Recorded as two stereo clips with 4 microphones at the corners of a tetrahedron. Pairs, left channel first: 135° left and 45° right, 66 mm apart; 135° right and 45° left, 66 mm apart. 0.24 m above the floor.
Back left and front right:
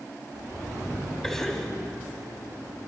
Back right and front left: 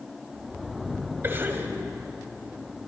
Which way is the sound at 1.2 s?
60° left.